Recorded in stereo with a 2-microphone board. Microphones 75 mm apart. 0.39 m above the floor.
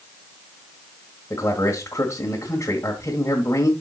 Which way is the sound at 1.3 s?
40° left (ahead or behind).